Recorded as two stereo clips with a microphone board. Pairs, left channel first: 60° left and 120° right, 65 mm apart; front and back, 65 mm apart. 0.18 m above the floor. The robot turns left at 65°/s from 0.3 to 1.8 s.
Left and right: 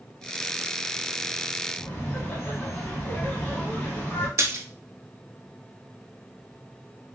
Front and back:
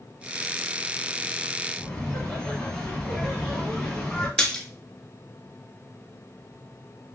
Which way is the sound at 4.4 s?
80° right.